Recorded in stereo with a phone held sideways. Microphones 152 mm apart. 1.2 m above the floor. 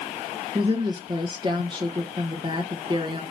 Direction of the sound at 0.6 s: 30° right (ahead or behind).